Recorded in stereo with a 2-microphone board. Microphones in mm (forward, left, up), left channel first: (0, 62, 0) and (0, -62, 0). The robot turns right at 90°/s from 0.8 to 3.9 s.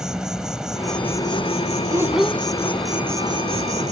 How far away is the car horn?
I don't hear a car horn.